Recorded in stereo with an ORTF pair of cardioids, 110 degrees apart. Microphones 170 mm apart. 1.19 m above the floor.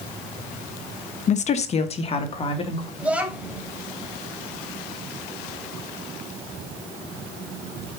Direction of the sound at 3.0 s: 5° right.